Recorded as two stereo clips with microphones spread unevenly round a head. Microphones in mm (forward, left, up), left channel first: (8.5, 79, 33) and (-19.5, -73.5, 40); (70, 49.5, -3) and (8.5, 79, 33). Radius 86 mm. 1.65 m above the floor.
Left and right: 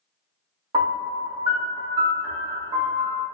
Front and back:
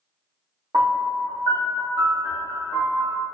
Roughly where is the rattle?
No rattle in this recording.